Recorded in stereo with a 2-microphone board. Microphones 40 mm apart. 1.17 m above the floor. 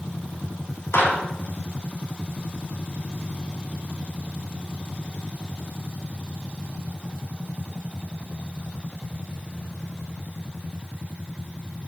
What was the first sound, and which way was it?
A clap, 80° left.